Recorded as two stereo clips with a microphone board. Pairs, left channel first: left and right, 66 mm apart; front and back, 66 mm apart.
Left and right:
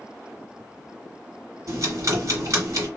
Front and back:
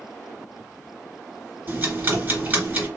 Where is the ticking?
120° right, 2.5 m.